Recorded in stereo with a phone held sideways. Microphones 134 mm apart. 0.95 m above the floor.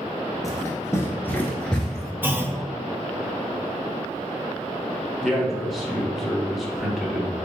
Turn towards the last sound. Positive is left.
turn(degrees=0)  # may be behind; listen again after turning